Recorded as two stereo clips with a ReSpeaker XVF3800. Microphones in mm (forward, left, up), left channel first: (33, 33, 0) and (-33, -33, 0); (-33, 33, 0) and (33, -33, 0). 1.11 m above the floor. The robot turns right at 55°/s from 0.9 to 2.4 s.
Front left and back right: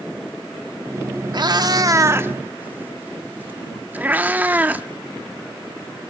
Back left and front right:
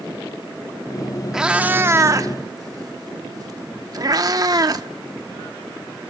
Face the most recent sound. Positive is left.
turn(degrees=-70)